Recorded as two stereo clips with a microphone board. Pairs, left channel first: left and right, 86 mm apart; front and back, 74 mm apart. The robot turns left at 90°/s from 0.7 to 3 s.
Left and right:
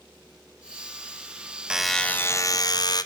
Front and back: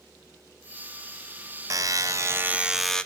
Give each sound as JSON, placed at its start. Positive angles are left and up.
{"t": 1.7, "sound": "a buzzer", "azimuth_deg": -165, "distance_m": 0.7}